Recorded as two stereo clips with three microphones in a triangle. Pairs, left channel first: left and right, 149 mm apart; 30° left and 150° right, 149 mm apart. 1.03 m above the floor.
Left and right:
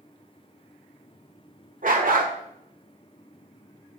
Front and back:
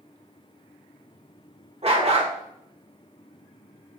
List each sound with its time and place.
1.8 s a dog barking: 105° right, 1.4 m